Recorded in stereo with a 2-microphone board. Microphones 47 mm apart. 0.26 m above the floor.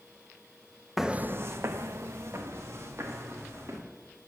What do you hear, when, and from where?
1.0 s footsteps: 5° right (ahead or behind), 0.6 m; by 3.8 s 70° right (ahead or behind), 4 m